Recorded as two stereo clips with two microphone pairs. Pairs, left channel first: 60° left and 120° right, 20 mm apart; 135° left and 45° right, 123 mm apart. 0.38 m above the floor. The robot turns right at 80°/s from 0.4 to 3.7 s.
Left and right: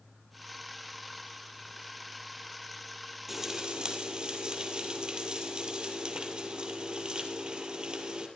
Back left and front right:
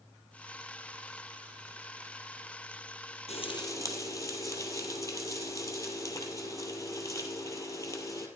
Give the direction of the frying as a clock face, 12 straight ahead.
6 o'clock.